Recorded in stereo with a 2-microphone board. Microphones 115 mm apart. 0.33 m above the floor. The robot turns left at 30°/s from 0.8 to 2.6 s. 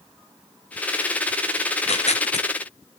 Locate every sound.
1.7 s tearing paper: 65° left (ahead or behind), 1.0 m; by 2.5 s 85° left, 1.0 m